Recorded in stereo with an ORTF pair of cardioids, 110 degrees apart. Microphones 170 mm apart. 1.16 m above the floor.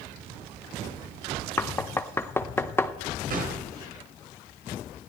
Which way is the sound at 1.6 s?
15° left.